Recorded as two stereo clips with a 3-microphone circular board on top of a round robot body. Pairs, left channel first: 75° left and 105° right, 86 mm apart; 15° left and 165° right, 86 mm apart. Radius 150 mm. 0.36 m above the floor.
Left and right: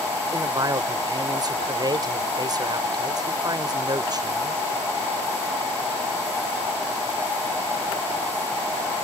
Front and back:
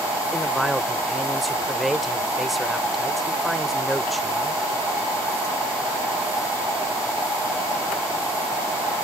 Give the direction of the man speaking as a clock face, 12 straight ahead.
3 o'clock.